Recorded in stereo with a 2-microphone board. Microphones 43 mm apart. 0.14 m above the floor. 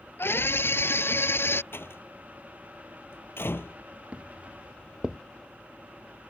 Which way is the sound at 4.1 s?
25° right (ahead or behind).